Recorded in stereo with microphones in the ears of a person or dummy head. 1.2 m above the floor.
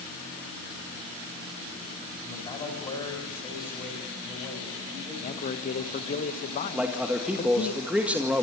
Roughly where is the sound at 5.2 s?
Left.